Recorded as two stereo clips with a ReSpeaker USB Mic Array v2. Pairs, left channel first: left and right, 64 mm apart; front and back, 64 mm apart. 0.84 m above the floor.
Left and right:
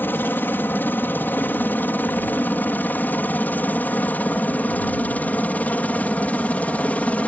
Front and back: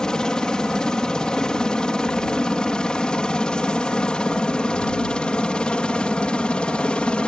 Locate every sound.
0.0 s a helicopter: 70° left; by 7.3 s 55° left